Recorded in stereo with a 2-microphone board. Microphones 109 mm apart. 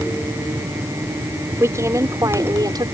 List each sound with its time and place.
1.6 s a woman speaking: 25° right (ahead or behind); by 2.9 s 40° right (ahead or behind)